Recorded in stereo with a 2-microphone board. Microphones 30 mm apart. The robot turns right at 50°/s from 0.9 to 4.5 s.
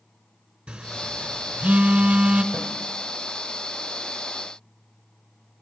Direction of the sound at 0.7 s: 50° right (ahead or behind).